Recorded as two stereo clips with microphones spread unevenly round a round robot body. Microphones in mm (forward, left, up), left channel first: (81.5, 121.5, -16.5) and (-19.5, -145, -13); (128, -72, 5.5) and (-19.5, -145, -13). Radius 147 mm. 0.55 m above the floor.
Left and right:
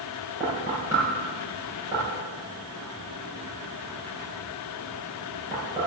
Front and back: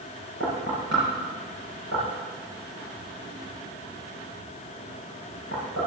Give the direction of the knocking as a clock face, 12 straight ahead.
6 o'clock.